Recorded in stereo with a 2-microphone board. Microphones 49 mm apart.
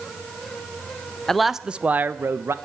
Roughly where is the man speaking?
Centre.